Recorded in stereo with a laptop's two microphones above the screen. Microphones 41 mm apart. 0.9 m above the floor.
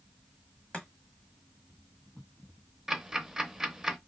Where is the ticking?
10° right (ahead or behind), 0.6 m.